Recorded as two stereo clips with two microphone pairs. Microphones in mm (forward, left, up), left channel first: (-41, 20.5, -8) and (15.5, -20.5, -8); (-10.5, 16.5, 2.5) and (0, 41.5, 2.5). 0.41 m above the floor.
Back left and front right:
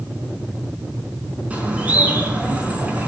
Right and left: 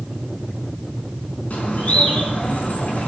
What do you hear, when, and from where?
1.5 s a bird: 105° right, 4.5 m